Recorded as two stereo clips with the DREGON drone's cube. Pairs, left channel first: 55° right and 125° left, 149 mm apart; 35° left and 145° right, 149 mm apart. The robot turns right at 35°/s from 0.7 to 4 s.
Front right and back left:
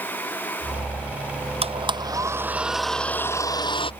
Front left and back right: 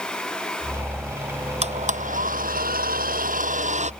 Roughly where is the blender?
Behind.